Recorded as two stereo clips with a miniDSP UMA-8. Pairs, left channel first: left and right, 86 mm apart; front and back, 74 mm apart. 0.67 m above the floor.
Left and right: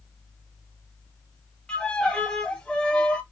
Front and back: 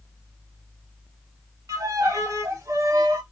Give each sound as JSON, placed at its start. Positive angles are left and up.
{"t": 1.7, "sound": "a violin", "azimuth_deg": 165, "distance_m": 0.7}